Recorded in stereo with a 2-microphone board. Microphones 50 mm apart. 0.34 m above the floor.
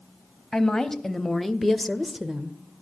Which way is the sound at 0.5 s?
10° left (ahead or behind).